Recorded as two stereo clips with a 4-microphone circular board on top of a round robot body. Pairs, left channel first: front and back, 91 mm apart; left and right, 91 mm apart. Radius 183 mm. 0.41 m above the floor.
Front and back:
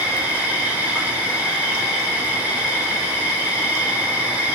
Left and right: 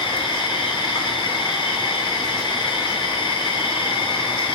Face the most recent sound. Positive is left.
turn(degrees=105)